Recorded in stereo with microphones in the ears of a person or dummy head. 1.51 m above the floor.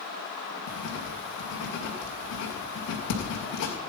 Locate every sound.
0.7 s writing: 50° left (ahead or behind), 2 m